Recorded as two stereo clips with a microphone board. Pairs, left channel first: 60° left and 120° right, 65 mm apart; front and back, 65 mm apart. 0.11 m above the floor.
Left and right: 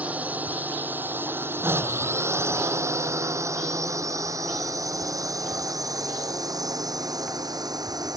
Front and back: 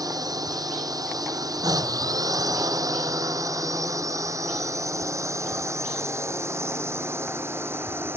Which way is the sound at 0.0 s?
175° left.